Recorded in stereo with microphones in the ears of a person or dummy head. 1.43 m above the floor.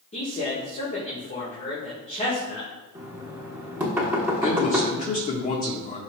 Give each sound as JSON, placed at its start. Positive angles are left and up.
{"t": 0.1, "sound": "a man speaking", "side_deg": 40, "distance_m": 1.7}
{"t": 3.0, "sound": "knocking", "side_deg": -15, "distance_m": 1.2}
{"t": 4.4, "sound": "a man speaking", "side_deg": 35, "distance_m": 1.4}